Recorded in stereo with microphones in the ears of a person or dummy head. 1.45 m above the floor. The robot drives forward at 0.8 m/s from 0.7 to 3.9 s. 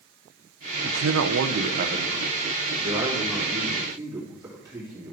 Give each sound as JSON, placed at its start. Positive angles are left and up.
{"t": 0.8, "sound": "a man speaking", "side_deg": -75, "distance_m": 0.7}